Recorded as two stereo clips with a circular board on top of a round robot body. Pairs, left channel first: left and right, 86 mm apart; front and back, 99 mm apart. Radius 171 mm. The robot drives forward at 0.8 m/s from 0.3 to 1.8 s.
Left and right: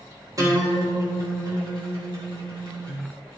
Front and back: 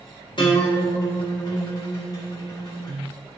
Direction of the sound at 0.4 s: 40° right.